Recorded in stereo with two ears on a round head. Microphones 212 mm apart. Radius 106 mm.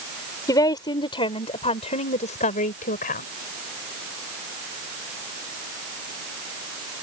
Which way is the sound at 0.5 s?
15° left (ahead or behind).